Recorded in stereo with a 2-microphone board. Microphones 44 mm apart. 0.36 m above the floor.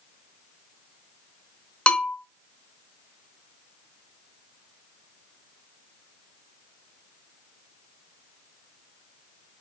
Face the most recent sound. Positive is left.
turn(degrees=25)  # may be behind; listen again after turning